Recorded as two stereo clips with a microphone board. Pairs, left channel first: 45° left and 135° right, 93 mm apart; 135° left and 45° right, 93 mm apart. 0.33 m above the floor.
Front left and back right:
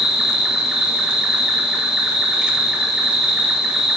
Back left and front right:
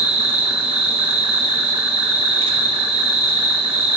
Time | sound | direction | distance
0.0 | an insect | 55° right | 0.9 m